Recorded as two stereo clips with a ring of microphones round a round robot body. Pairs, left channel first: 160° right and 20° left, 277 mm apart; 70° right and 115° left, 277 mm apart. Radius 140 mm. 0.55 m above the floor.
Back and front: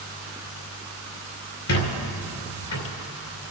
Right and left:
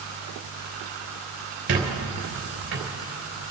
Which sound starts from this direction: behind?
A squeak, at 1.7 s.